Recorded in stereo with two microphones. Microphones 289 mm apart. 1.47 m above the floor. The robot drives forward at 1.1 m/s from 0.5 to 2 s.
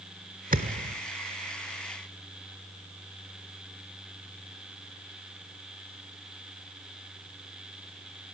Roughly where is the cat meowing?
No cat meowing in this recording.